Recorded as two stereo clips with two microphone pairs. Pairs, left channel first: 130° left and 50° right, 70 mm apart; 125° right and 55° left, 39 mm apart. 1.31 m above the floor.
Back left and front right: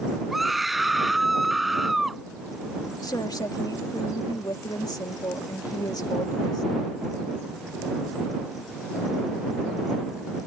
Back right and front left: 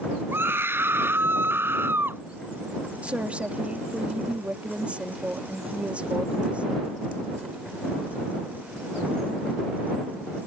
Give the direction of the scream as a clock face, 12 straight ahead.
11 o'clock.